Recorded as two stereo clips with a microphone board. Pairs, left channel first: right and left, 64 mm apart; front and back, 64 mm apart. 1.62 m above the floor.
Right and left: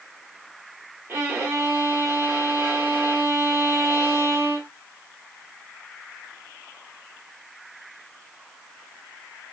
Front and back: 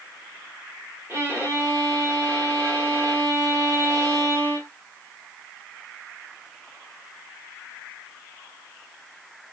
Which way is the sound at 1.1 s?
140° left.